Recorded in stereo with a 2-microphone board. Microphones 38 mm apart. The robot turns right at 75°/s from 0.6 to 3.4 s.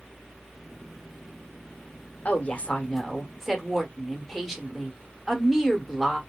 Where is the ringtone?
I don't hear a ringtone.